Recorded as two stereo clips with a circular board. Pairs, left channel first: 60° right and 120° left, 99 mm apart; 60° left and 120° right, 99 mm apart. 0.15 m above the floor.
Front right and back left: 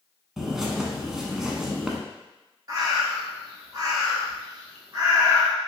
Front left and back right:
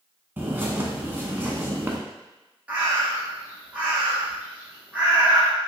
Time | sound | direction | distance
0.4 | a bird | 160° right | 0.6 m
2.7 | a bird | 165° left | 1.4 m